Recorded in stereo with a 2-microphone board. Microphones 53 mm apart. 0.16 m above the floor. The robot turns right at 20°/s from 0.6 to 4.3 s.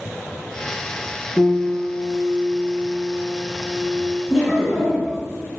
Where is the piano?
60° right, 1.9 m; by 4.2 s 5° right, 1.9 m.